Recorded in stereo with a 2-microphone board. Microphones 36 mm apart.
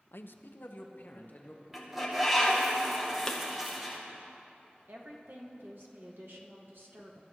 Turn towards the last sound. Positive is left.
turn(degrees=-75)  # may be behind; listen again after turning